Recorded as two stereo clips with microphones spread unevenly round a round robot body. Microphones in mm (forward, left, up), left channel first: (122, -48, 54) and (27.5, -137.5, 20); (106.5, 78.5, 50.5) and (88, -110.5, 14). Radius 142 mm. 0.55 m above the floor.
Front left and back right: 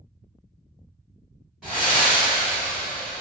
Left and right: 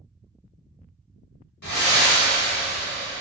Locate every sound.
1.6 s breathing: 125° left, 0.5 m